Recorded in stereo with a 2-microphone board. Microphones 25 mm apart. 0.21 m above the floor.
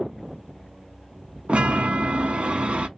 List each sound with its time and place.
1.5 s a chime: 55° right (ahead or behind), 0.6 m